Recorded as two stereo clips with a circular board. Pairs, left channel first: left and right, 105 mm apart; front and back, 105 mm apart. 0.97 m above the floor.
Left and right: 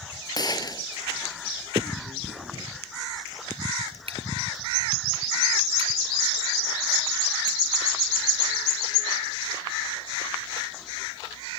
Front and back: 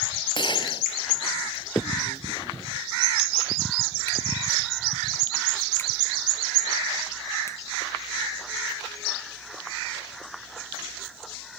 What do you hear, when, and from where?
0.3 s a gunshot: 40° left
1.8 s a finger snap: 65° right